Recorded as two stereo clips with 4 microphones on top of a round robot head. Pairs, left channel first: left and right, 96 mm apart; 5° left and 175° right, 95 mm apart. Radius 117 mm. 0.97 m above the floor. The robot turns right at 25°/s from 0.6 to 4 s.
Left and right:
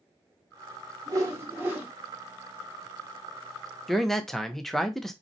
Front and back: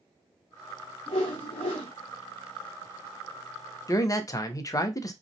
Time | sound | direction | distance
1.1 | a whoosh | 35° right | 0.7 m
3.9 | a man speaking | straight ahead | 0.6 m